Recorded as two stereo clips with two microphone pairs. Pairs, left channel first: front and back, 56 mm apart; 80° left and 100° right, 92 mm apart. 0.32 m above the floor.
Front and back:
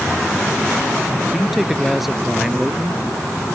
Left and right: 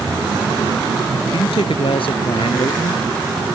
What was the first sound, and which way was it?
A man speaking, 95° left.